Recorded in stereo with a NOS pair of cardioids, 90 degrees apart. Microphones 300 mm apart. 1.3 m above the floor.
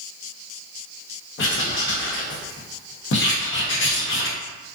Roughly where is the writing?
Ahead left.